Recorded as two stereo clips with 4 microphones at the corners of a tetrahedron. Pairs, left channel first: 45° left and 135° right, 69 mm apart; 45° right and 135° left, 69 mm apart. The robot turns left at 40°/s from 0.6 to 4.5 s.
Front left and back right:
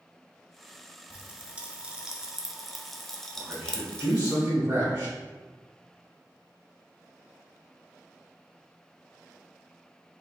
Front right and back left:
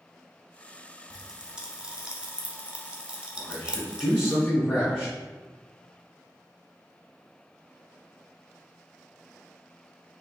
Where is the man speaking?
65° right, 1.2 m; by 5.1 s 110° right, 1.2 m.